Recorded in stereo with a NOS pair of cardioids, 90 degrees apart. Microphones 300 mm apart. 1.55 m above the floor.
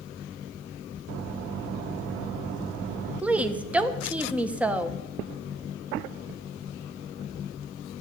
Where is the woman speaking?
5° right, 1.3 m.